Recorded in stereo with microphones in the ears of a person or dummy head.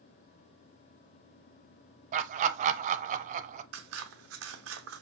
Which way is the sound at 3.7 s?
70° right (ahead or behind).